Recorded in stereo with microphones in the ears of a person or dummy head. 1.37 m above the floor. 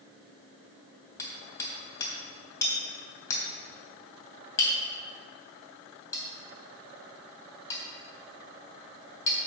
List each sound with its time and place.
1.2 s hammering: 20° left (ahead or behind), 3 m